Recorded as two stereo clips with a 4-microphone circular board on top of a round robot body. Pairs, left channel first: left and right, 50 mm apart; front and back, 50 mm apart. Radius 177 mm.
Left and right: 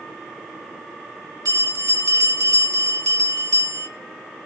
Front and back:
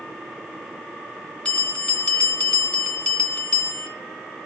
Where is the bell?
70° right, 2.5 m.